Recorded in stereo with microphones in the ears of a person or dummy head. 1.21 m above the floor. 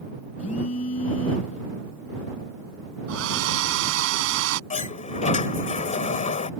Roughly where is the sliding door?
Left.